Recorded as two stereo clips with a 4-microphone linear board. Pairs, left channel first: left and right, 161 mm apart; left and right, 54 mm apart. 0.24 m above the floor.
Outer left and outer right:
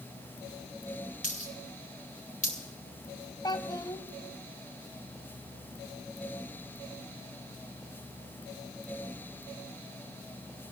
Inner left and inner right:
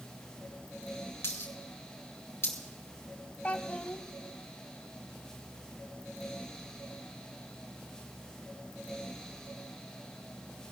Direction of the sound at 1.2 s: 50° left (ahead or behind).